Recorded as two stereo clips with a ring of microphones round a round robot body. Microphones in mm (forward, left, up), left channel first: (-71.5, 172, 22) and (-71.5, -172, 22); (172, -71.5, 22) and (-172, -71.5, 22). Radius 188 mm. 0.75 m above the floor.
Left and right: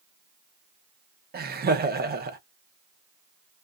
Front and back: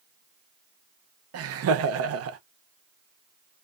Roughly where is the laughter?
Behind right.